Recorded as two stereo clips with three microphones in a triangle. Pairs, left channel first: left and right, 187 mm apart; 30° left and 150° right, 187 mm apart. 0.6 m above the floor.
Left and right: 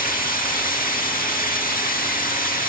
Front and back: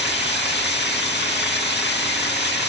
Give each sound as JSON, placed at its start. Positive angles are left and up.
{"t": 0.0, "sound": "running water", "azimuth_deg": 50, "distance_m": 3.0}